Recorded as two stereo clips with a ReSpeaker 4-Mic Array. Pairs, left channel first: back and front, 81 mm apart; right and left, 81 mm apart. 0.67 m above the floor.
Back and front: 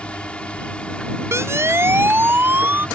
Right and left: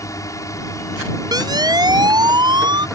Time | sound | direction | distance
0.0 | a drone | 110° right | ?
1.3 | a siren | 55° left | ?